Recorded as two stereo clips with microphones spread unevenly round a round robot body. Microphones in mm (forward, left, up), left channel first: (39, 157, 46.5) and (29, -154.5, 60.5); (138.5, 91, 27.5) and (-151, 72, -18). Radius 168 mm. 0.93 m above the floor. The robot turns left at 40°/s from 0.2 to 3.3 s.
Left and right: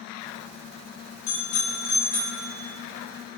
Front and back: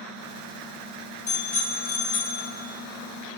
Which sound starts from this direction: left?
A bicycle bell, at 1.3 s.